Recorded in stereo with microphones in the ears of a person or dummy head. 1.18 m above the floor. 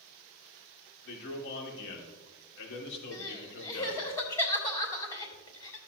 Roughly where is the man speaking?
Left.